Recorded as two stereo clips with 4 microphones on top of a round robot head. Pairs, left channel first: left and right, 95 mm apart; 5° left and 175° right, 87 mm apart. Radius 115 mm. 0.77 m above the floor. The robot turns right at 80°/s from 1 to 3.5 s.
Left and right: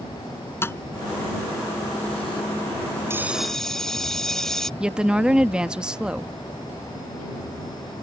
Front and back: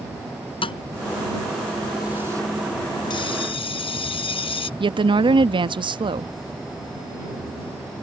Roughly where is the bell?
Ahead right.